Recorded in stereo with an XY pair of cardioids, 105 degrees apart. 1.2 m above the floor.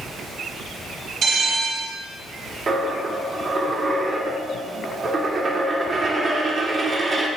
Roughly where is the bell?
Ahead right.